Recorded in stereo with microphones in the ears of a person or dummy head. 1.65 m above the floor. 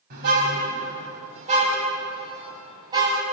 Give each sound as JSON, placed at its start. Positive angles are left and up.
{"t": 0.1, "sound": "a car horn", "side_deg": -50, "distance_m": 6.0}